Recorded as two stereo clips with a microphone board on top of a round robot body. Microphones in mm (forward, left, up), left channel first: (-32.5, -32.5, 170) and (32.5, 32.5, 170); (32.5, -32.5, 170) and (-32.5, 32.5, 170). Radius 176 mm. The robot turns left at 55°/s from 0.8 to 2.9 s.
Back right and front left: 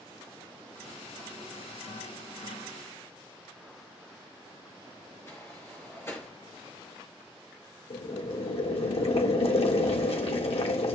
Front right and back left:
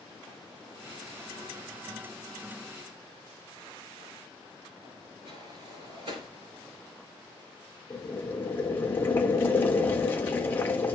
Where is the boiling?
115° right, 1.3 m.